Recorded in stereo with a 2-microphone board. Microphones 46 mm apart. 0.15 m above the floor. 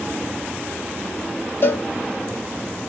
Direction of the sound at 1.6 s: 60° left (ahead or behind).